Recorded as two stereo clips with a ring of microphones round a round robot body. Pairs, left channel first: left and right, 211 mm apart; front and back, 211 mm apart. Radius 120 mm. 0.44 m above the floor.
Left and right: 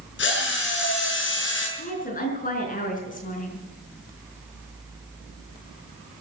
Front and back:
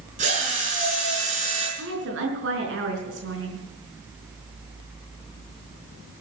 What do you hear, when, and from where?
0.2 s a drill: 120° left, 6 m
1.8 s a woman speaking: 140° left, 5 m